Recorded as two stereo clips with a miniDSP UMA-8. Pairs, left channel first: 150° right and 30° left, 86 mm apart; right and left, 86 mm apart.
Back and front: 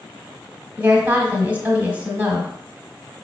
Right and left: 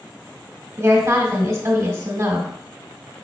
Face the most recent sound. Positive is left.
turn(degrees=90)